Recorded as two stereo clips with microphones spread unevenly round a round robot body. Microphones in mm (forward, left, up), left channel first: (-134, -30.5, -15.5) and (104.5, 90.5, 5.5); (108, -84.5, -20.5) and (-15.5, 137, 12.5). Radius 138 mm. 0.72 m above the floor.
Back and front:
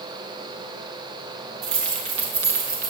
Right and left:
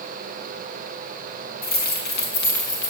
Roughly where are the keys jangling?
Ahead.